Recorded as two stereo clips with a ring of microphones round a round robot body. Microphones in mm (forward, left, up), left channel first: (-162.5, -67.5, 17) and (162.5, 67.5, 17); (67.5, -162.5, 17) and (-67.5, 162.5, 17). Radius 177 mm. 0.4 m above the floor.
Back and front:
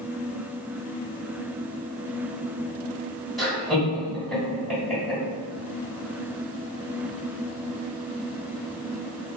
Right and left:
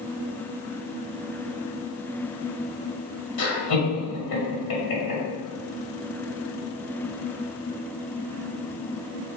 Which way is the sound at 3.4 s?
70° right.